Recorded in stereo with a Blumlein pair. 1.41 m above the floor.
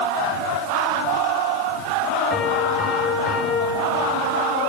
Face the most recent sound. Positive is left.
turn(degrees=15)